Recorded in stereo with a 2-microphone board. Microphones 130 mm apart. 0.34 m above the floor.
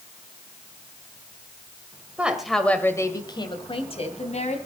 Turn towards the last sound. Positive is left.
turn(degrees=60)  # may be behind; listen again after turning